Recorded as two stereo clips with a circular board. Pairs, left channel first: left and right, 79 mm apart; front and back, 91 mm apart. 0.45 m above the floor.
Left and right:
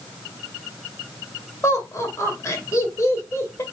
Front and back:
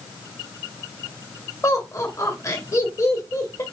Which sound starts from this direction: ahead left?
Laughter, at 1.6 s.